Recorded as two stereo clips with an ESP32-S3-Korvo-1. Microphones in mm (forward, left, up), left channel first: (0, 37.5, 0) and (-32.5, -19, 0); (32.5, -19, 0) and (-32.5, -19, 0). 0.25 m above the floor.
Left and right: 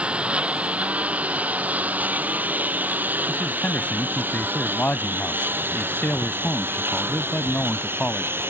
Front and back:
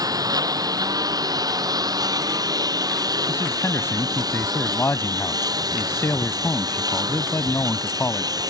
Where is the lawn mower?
165° left; by 8.5 s 175° right.